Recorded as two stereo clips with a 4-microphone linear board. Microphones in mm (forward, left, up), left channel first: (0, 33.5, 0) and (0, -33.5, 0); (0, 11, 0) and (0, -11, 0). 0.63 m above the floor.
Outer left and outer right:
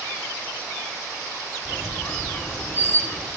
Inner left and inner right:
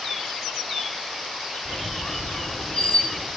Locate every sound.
1.6 s a squeak: 30° left (ahead or behind), 1.0 m